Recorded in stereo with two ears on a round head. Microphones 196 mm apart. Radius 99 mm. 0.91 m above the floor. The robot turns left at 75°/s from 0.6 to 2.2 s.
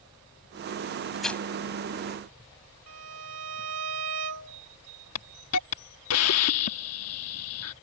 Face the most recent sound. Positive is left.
turn(degrees=75)  # may be behind; listen again after turning